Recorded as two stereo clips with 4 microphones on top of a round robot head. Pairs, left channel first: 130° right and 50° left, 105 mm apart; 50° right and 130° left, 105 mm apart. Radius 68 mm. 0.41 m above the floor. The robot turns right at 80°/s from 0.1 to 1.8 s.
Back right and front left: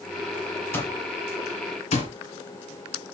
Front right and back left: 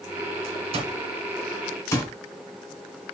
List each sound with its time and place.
0.7 s an alarm clock: 160° left, 2.5 m; by 2.1 s 115° right, 2.5 m